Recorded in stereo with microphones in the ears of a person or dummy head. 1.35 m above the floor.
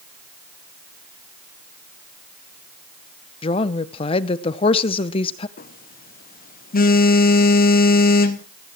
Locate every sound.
3.4 s a woman speaking: 30° left (ahead or behind), 0.8 m
5.6 s a phone buzzing: 45° left (ahead or behind), 0.9 m